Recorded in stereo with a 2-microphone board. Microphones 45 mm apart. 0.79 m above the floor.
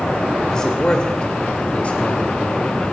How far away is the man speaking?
About 2.5 m.